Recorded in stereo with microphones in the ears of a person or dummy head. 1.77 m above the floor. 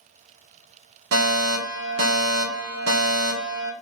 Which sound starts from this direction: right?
A fire alarm, at 1.1 s.